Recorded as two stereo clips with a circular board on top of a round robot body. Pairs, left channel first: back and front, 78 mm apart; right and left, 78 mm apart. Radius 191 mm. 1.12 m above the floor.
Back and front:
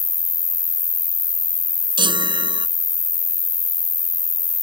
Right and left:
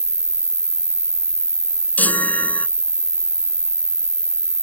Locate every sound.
0.0 s an insect: 155° left
2.0 s a chime: 20° right